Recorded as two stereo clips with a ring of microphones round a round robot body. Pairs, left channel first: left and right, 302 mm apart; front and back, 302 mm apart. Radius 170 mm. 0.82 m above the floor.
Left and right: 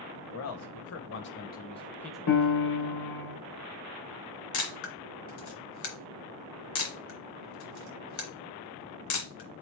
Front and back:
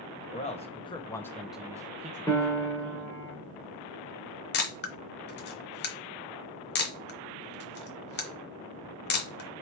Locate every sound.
0.3 s a man speaking: 65° left, 1.2 m; by 3.1 s 140° right, 1.0 m
2.3 s a piano: 80° left, 1.8 m
4.5 s a camera shutter: 50° left, 0.9 m